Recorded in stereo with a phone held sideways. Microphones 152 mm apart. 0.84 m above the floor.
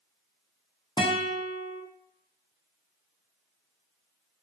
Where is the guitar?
30° left (ahead or behind), 0.6 m.